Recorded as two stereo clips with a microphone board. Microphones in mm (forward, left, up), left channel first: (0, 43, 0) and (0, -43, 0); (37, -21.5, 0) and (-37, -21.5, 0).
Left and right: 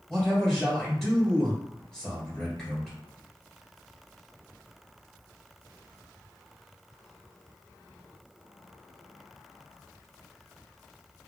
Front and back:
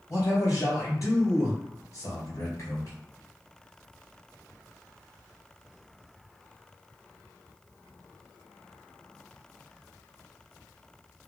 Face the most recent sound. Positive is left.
turn(degrees=10)